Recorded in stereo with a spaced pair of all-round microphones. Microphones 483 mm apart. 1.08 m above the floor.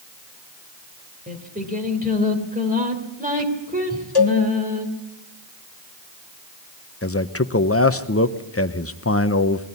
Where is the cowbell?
50° left (ahead or behind), 1.5 m.